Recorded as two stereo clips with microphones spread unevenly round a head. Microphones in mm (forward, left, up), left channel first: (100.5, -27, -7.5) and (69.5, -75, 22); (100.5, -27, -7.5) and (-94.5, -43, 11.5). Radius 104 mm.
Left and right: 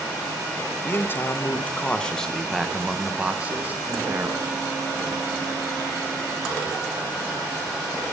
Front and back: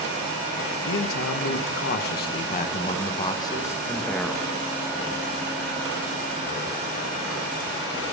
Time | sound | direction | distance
0.8 | a man speaking | straight ahead | 1.4 m